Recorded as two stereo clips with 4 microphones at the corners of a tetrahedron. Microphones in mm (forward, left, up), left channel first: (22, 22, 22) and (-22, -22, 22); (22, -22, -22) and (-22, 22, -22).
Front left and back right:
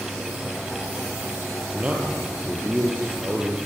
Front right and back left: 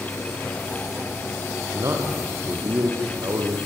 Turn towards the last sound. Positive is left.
turn(degrees=160)